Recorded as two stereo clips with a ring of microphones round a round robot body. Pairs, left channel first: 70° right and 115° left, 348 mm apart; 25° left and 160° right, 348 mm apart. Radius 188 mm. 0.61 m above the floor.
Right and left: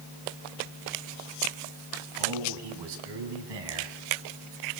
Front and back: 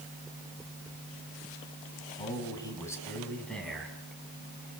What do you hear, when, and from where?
2.2 s a man speaking: 100° left, 5.5 m; by 4.0 s 115° left, 6 m